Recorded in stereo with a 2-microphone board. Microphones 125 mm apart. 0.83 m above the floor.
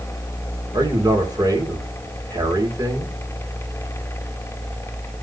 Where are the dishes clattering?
I don't hear dishes clattering.